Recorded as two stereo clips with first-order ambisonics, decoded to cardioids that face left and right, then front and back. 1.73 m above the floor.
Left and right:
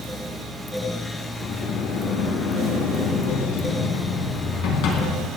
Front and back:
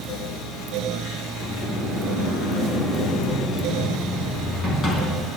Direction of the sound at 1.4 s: 65° left.